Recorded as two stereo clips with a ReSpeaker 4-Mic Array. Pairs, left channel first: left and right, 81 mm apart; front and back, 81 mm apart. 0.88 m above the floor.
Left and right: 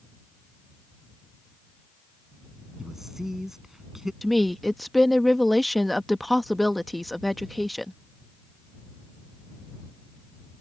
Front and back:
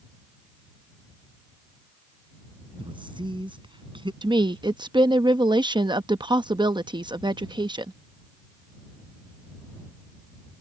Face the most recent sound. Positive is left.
turn(degrees=180)